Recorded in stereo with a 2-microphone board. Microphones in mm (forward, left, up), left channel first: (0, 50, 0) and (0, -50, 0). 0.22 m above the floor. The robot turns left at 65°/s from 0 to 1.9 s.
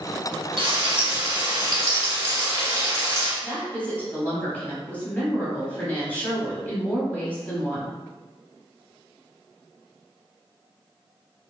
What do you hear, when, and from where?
0.6 s frying: 70° right, 1.6 m; by 3.3 s 155° right, 1.6 m
3.4 s a woman speaking: 15° left (ahead or behind), 1.1 m